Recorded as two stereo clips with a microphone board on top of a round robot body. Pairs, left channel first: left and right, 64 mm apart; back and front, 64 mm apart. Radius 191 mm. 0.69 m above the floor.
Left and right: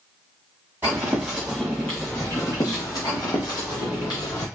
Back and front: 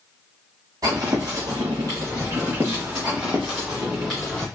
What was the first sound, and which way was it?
Footsteps, 30° right.